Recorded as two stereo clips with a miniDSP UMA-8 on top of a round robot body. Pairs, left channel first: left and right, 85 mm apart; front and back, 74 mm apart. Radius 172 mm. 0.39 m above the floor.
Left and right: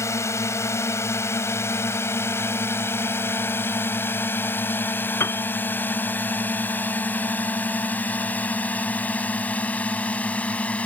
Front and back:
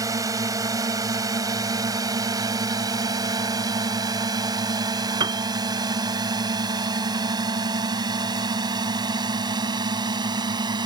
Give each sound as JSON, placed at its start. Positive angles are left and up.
{"t": 0.0, "sound": "a drone", "azimuth_deg": 145}
{"t": 5.2, "sound": "a piano", "azimuth_deg": 150}